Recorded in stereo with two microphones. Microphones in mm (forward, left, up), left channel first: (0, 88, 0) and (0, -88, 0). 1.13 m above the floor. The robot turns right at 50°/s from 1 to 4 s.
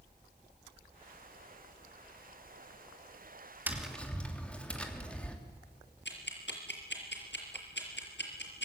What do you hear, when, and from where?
3.7 s tapping: 10° right (ahead or behind), 3 m; by 5.4 s 5° left (ahead or behind), 3 m
6.0 s ticking: 80° left, 5 m